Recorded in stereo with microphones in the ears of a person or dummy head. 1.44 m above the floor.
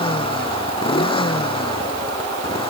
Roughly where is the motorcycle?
Left.